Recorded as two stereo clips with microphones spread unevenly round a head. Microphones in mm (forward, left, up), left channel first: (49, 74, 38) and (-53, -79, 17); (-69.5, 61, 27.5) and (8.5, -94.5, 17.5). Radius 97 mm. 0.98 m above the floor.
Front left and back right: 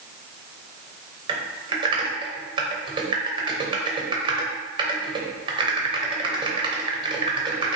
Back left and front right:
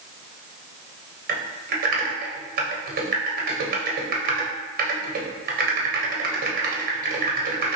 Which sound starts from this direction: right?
Typing on a keyboard, at 1.3 s.